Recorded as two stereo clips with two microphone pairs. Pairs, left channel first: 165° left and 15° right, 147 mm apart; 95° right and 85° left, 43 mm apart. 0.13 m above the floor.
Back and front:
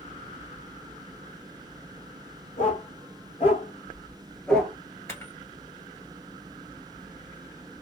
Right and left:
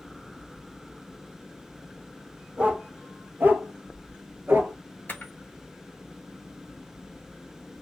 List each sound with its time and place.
2.6 s a dog barking: 135° left, 1.3 m; by 4.8 s 65° left, 0.8 m
5.1 s a camera shutter: 125° right, 0.8 m